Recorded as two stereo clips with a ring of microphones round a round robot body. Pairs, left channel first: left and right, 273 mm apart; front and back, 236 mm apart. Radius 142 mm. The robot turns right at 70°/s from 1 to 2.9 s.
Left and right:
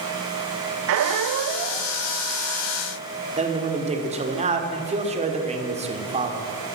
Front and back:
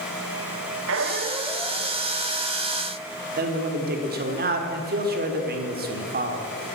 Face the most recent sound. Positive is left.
turn(degrees=-150)